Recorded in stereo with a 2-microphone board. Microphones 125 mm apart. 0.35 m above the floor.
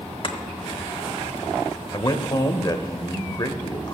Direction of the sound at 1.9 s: 35° left (ahead or behind).